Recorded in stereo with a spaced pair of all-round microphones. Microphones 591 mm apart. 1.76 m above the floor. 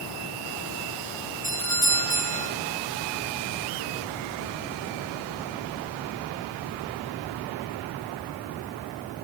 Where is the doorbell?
45° left (ahead or behind), 6 m.